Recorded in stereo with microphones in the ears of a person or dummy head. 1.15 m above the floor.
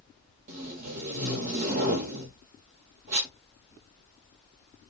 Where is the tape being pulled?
40° right (ahead or behind), 1.1 m.